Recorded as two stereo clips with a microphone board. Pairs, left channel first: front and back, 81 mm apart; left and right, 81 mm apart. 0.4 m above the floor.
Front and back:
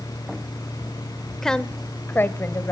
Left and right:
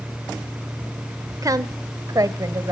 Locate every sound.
1.4 s a woman speaking: 80° right, 1.0 m; by 2.7 s 50° right, 1.7 m